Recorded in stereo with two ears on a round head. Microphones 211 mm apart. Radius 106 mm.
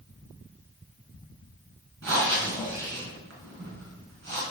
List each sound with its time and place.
2.0 s breathing: 55° right (ahead or behind), 3.5 m